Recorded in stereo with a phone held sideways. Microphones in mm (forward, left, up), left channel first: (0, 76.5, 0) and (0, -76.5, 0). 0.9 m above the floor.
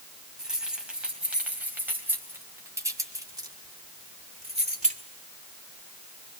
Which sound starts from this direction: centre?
Keys jangling, at 0.4 s.